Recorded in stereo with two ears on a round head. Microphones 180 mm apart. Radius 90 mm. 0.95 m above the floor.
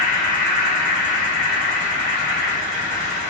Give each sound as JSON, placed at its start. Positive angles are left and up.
{"t": 0.0, "sound": "an insect", "side_deg": -40, "distance_m": 1.2}